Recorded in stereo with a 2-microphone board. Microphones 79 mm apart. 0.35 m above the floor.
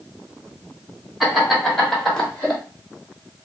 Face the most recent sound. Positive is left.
turn(degrees=15)  # may be behind; listen again after turning